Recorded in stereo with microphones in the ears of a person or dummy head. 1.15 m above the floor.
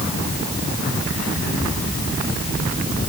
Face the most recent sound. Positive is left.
No sound to turn to.